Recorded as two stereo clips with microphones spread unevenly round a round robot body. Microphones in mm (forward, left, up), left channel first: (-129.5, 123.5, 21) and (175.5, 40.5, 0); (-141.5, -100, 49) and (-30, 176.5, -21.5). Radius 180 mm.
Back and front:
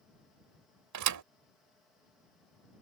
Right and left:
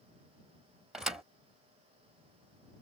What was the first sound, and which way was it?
A thud, 10° right.